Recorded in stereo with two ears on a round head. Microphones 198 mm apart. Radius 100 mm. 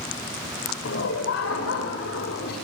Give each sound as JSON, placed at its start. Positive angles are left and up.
{"t": 0.8, "sound": "laughter", "side_deg": 60, "distance_m": 7.0}